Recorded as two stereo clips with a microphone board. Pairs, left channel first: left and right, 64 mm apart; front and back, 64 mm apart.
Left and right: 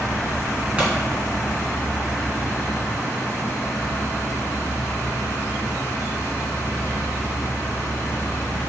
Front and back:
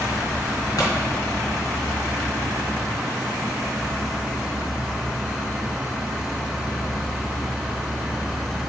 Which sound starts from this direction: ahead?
A pop, at 0.8 s.